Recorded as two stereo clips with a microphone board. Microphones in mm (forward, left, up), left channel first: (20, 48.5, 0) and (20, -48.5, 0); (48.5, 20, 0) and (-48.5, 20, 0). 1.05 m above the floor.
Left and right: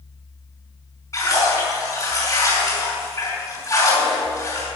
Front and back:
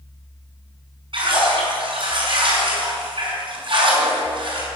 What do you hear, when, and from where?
1.1 s a splash: 150° left, 5.5 m